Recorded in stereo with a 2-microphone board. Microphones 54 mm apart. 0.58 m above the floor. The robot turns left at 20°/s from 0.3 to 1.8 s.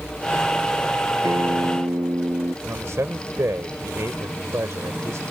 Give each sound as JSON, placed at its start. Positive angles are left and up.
{"t": 1.2, "sound": "a guitar", "side_deg": -75}
{"t": 2.6, "sound": "a man speaking", "side_deg": -70}